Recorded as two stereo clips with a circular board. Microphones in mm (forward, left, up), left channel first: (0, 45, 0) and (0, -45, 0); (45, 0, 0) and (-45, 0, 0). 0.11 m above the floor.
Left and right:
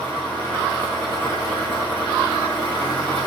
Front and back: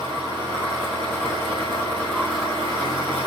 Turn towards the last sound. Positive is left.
turn(degrees=160)